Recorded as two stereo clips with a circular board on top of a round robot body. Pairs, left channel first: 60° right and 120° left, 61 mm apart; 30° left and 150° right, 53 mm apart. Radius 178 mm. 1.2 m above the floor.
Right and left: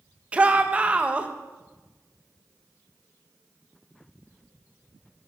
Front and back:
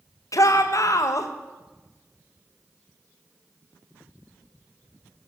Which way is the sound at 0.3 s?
50° left.